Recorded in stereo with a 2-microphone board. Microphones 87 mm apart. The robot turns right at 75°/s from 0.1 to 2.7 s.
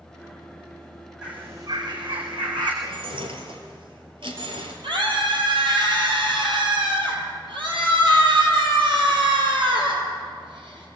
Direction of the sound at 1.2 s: 170° right.